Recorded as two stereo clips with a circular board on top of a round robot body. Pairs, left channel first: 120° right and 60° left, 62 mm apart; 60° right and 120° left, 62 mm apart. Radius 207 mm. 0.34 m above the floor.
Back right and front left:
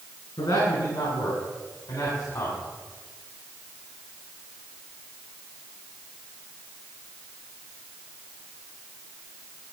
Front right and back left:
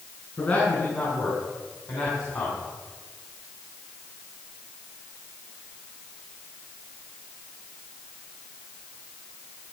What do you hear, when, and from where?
0.4 s a man speaking: 115° right, 5 m; by 2.6 s 85° right, 4 m